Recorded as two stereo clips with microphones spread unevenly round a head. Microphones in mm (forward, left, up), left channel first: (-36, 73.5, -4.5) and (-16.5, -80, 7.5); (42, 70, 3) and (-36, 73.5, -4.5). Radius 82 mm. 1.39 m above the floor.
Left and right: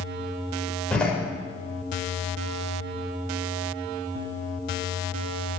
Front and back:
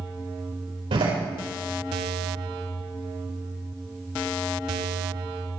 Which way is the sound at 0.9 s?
Straight behind.